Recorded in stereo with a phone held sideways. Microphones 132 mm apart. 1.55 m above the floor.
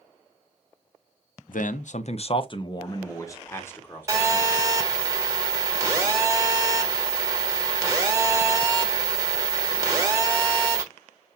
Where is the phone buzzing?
25° right (ahead or behind), 1.3 m.